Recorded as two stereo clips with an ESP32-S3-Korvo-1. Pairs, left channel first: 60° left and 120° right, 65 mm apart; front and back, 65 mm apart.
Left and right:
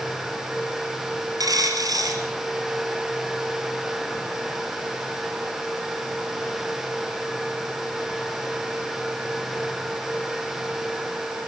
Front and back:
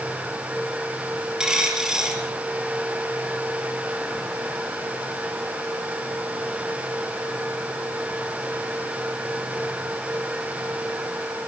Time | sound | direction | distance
1.4 | a dropped coin | 100° right | 3 m